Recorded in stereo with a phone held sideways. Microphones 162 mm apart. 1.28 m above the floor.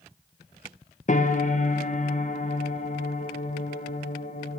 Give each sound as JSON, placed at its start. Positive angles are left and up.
{"t": 1.1, "sound": "a piano", "side_deg": 50, "distance_m": 1.3}